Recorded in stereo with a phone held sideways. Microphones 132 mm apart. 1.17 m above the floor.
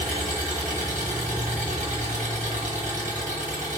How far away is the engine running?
About 1.1 m.